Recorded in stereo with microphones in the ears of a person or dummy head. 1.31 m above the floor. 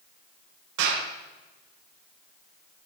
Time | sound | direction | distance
0.8 | a clap | 75° right (ahead or behind) | 4.5 m